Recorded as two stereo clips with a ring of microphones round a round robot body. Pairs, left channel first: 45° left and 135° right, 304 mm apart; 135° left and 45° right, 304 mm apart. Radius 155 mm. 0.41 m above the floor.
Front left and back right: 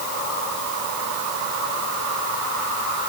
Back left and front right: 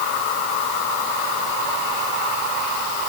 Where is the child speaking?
No child speaking in this recording.